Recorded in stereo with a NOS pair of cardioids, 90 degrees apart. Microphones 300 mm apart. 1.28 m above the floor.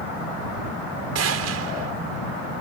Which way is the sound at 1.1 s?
60° right.